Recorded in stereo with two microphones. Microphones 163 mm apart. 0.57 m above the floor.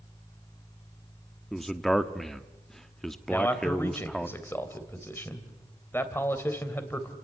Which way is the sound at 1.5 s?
Centre (ahead or behind).